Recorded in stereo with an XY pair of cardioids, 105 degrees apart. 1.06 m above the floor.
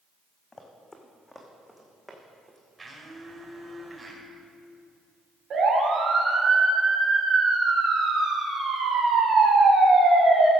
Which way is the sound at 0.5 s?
25° left.